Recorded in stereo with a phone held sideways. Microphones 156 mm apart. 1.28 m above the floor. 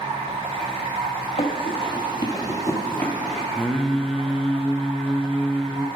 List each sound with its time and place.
0.0 s running water: 35° right (ahead or behind), 0.9 m
1.4 s running footsteps: 40° left (ahead or behind), 1.6 m; by 3.5 s 5° left (ahead or behind), 1.4 m
3.5 s singing: centre (ahead or behind), 0.5 m